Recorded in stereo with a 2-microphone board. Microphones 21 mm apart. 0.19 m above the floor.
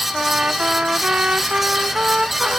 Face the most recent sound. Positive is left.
turn(degrees=-65)  # may be behind; listen again after turning